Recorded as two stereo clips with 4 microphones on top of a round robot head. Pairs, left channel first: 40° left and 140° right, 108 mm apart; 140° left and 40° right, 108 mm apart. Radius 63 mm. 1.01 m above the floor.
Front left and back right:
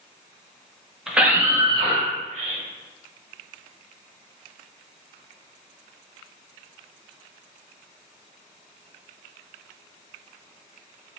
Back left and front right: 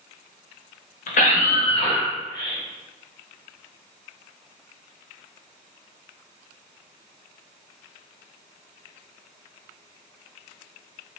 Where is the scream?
135° left, 1.3 m; by 2.6 s 160° right, 2 m.